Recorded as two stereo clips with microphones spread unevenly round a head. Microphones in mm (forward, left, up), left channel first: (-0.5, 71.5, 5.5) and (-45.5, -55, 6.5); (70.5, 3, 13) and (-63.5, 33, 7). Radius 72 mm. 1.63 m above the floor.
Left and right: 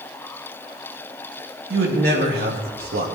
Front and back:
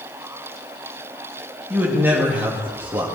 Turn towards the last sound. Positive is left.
turn(degrees=-115)